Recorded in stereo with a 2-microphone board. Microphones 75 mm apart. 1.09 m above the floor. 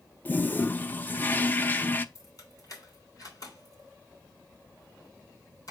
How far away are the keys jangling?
About 3 m.